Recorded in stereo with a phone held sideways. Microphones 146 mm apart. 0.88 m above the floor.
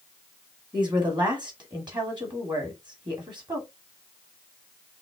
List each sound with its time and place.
0.7 s a woman speaking: 30° right (ahead or behind), 2 m